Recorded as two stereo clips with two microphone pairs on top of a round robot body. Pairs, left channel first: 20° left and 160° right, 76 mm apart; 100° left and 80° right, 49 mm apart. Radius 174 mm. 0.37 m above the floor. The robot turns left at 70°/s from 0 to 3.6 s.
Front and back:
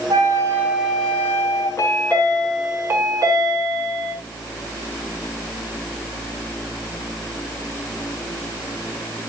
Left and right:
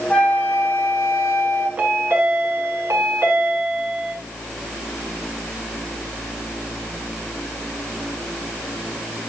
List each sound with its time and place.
0.1 s a flute: 170° left, 5 m; by 1.7 s 60° left, 5 m
1.8 s a chime: 20° right, 6 m; by 4.1 s 145° right, 6 m